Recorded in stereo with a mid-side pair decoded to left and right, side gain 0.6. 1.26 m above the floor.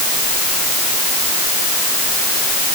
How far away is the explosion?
I don't hear an explosion.